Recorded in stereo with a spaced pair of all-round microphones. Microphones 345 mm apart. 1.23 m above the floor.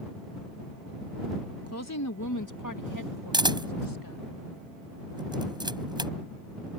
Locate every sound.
1.7 s a woman speaking: 45° left (ahead or behind); by 4.2 s 75° left (ahead or behind)
3.3 s a camera shutter: 10° right (ahead or behind)